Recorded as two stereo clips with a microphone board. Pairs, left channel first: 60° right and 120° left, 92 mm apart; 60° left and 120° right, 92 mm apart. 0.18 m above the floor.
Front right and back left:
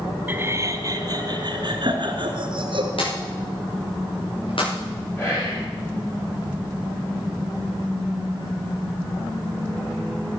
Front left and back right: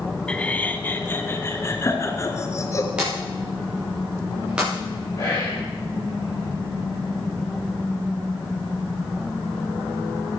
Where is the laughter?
120° left, 1.4 m; by 2.9 s 115° left, 3 m.